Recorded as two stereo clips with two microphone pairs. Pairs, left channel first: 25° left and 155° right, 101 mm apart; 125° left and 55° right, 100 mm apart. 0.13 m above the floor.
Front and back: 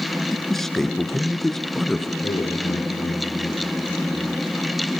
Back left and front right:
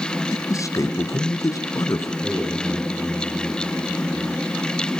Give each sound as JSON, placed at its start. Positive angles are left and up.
{"t": 0.3, "sound": "a man speaking", "azimuth_deg": 110, "distance_m": 1.4}
{"t": 2.2, "sound": "a man speaking", "azimuth_deg": 25, "distance_m": 8.0}